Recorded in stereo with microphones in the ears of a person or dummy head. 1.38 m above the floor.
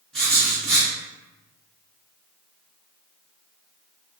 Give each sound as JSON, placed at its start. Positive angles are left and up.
{"t": 0.1, "sound": "writing", "side_deg": 0, "distance_m": 1.6}